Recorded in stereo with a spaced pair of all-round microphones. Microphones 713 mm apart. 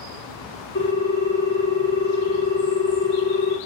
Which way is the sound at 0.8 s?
25° left (ahead or behind).